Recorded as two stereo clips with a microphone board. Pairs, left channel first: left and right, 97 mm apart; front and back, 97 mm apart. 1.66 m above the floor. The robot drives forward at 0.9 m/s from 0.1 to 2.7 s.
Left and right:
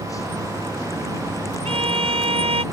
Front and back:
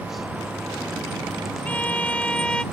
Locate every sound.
1.6 s a violin: 75° right; by 2.6 s 80° right